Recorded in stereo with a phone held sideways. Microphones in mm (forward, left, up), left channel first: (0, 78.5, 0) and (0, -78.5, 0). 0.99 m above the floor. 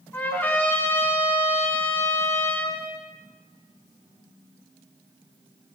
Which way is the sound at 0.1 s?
15° left (ahead or behind).